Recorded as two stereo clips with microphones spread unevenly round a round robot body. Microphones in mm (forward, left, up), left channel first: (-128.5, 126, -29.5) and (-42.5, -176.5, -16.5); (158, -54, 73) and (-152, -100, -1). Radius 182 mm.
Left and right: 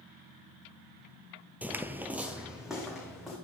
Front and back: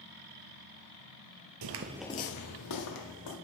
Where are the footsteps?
155° right, 0.7 m; by 3.4 s 15° left, 2 m.